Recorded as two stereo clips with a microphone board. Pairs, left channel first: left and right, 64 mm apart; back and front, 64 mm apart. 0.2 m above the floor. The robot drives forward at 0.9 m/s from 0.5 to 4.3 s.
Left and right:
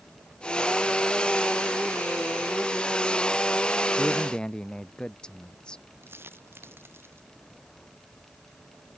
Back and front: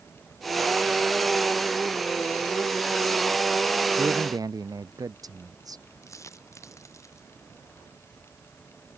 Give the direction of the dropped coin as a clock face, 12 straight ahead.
5 o'clock.